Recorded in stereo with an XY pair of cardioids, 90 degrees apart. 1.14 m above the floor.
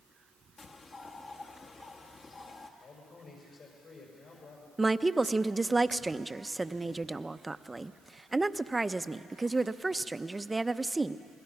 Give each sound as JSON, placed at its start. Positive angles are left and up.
{"t": 0.6, "sound": "a bird", "azimuth_deg": 45, "distance_m": 1.5}
{"t": 2.8, "sound": "a man speaking", "azimuth_deg": 60, "distance_m": 5.5}
{"t": 4.8, "sound": "a woman speaking", "azimuth_deg": -15, "distance_m": 0.7}